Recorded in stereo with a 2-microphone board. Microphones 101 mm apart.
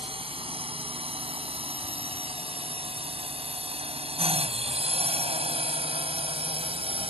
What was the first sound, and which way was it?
A drone, 65° right (ahead or behind).